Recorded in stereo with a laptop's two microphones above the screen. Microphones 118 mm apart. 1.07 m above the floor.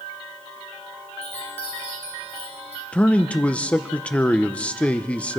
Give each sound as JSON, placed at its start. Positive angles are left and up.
{"t": 1.2, "sound": "a chime", "side_deg": 60, "distance_m": 9.0}
{"t": 2.9, "sound": "a man speaking", "side_deg": 10, "distance_m": 0.6}